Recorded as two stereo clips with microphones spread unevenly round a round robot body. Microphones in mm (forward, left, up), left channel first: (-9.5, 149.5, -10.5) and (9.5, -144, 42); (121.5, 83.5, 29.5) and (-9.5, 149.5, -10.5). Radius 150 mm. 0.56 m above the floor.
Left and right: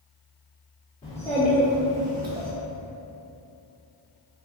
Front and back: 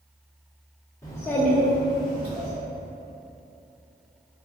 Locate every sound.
1.0 s a child speaking: 55° left, 0.7 m; by 2.5 s 145° right, 1.0 m